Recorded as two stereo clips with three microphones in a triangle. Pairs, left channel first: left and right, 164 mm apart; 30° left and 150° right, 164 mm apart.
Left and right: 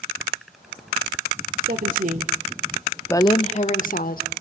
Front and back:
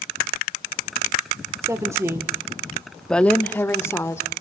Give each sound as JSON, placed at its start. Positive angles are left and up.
{"t": 1.6, "sound": "a woman speaking", "azimuth_deg": -80, "distance_m": 1.8}